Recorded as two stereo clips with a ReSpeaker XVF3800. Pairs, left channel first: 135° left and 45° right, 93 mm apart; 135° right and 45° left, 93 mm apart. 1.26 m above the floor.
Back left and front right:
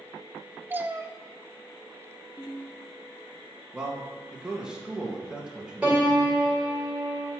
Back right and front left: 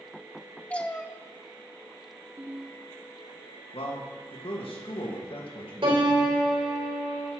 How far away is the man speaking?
About 2 m.